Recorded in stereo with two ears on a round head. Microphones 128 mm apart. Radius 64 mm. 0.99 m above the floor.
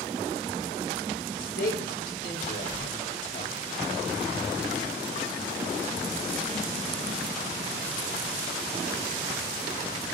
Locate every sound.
1.4 s a man speaking: 75° left (ahead or behind), 4 m; by 3.5 s 45° left (ahead or behind), 2.5 m